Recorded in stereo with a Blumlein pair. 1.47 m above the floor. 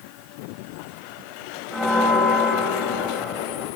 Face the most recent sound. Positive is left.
turn(degrees=0)